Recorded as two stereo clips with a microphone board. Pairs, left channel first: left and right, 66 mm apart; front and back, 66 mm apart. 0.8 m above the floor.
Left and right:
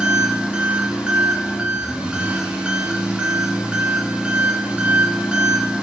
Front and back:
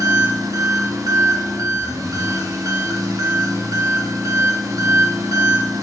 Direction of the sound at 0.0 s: 160° right.